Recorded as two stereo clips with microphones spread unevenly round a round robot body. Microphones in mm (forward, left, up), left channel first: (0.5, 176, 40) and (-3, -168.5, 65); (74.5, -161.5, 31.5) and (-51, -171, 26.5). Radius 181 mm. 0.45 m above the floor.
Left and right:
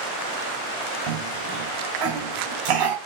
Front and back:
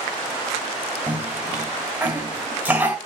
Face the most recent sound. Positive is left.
turn(degrees=-100)